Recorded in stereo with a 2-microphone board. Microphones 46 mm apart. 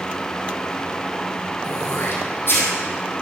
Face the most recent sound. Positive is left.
turn(degrees=55)  # may be behind; listen again after turning